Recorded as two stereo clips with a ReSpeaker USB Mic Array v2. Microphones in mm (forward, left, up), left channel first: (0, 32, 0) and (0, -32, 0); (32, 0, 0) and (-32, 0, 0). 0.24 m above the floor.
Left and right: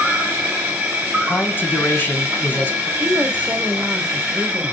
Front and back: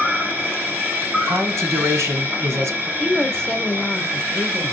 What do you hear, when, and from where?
0.0 s an insect: 145° right, 2.5 m
1.2 s a man speaking: 145° left, 1.9 m
3.0 s a woman speaking: 65° right, 1.2 m